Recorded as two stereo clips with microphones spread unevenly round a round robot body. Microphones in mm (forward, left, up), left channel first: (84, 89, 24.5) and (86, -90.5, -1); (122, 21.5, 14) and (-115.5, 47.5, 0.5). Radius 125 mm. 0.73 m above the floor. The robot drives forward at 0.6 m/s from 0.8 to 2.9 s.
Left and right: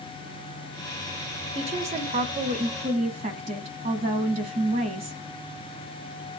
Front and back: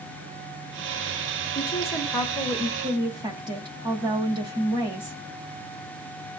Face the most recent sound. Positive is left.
turn(degrees=-125)